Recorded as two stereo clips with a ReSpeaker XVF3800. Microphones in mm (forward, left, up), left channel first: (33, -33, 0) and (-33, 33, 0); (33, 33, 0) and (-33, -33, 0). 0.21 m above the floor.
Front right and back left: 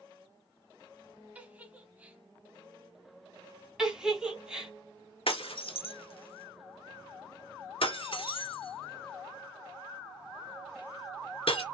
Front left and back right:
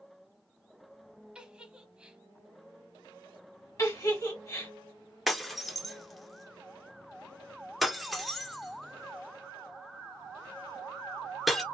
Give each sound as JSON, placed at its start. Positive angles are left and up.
{"t": 1.4, "sound": "a giggle", "azimuth_deg": 170, "distance_m": 0.9}
{"t": 3.8, "sound": "a giggle", "azimuth_deg": 60, "distance_m": 1.8}
{"t": 5.3, "sound": "breaking glass", "azimuth_deg": -45, "distance_m": 1.1}